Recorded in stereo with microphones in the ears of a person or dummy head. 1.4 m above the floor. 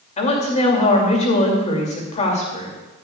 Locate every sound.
0.2 s a woman speaking: 35° left (ahead or behind), 2.5 m